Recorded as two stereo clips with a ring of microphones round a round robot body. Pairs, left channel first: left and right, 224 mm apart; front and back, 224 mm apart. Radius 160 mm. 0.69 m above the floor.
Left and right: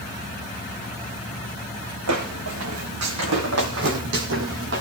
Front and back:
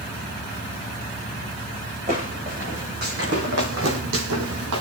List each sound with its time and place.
2.1 s footsteps: 110° right, 3.5 m; by 4.8 s 145° right, 2 m